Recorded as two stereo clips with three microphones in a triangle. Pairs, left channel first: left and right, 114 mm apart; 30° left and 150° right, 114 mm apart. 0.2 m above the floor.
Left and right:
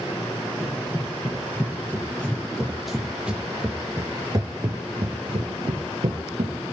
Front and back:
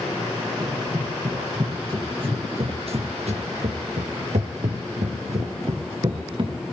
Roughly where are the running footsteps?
Behind left.